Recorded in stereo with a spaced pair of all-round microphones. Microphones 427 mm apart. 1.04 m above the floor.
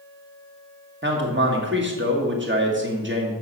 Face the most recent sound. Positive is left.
turn(degrees=-25)  # may be behind; listen again after turning